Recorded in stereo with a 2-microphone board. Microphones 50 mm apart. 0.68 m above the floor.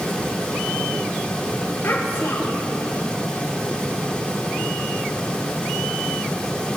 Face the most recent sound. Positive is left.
turn(degrees=50)  # may be behind; listen again after turning